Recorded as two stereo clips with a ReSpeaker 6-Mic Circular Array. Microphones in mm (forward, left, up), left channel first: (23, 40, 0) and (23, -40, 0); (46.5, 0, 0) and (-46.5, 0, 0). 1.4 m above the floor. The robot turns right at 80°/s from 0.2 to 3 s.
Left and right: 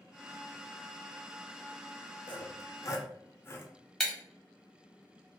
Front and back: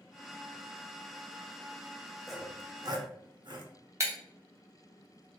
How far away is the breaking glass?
About 1.1 m.